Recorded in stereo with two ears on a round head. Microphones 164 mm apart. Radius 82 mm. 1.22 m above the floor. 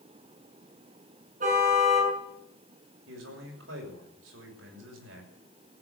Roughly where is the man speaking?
Right.